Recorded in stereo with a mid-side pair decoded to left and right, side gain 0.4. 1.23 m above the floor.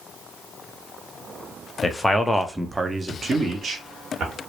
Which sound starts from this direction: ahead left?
A man speaking, at 1.8 s.